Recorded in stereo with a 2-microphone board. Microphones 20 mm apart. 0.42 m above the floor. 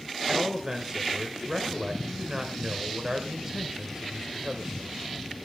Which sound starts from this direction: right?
A man speaking, at 0.3 s.